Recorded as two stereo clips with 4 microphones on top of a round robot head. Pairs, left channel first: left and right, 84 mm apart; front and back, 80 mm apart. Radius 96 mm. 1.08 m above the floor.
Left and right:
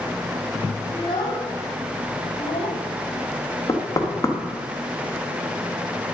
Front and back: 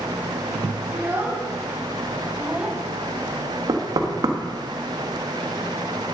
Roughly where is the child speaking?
Behind left.